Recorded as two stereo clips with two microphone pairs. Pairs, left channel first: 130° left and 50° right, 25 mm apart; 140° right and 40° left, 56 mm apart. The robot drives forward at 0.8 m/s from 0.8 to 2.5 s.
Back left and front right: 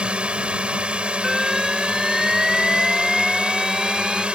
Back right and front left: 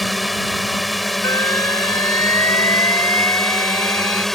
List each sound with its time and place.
0.0 s a drone: 50° right; by 4.3 s 55° right
1.2 s an alarm: 130° right; by 4.2 s 135° right